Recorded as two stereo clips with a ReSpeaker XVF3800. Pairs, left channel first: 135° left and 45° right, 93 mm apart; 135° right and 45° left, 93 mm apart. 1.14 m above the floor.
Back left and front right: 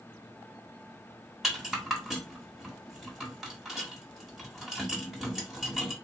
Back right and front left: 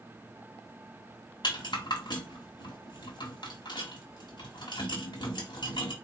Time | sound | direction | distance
1.4 | a rattle | 130° right | 1.4 m